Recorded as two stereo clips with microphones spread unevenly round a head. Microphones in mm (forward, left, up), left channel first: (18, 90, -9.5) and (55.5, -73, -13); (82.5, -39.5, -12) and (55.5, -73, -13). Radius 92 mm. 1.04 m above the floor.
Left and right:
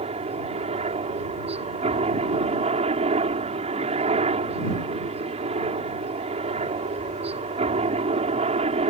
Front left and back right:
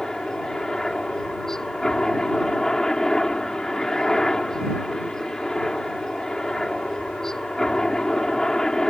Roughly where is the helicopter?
Ahead right.